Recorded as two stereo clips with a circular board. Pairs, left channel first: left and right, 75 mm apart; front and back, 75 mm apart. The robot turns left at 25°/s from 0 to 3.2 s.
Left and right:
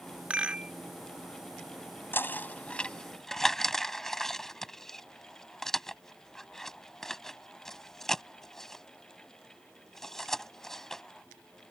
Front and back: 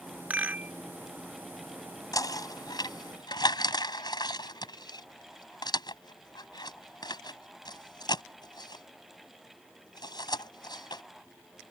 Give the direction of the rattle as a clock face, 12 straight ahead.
5 o'clock.